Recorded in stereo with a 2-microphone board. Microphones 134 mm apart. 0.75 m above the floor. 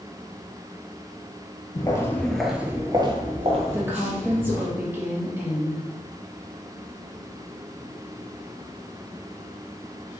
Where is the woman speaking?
15° right (ahead or behind), 1.1 m.